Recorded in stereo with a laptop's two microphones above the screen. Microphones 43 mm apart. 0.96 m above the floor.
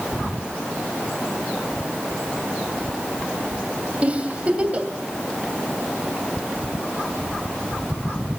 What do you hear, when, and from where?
4.0 s a giggle: 30° right (ahead or behind), 2.5 m